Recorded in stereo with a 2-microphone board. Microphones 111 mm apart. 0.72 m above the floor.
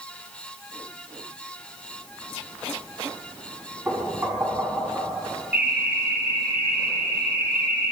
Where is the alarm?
15° right (ahead or behind), 3 m.